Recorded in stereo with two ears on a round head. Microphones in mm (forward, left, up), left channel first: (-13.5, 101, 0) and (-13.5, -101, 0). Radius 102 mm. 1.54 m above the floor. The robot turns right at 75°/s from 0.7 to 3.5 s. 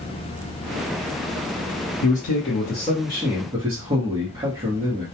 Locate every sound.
2.0 s a man speaking: 90° left, 0.8 m; by 5.0 s 160° right, 0.8 m